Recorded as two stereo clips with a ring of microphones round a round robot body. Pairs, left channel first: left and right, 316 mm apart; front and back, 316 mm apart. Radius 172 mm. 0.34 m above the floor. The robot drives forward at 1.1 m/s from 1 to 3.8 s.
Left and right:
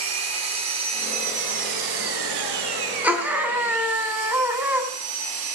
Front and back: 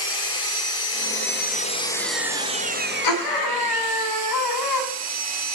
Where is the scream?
5° right, 4 m.